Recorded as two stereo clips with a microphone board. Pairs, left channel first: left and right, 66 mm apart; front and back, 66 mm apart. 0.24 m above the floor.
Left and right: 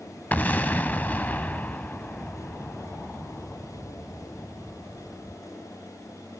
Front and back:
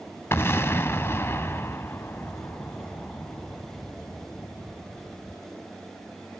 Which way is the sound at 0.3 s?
30° left.